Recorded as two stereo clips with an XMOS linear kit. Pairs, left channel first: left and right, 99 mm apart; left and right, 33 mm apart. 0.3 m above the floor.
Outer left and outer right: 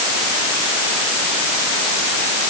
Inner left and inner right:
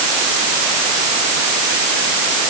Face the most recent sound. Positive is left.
No sound to turn to.